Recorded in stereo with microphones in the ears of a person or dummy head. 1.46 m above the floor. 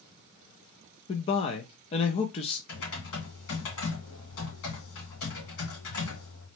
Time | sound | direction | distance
1.1 | a man speaking | 25° left (ahead or behind) | 0.5 m
2.7 | typing on a keyboard | 75° left (ahead or behind) | 2 m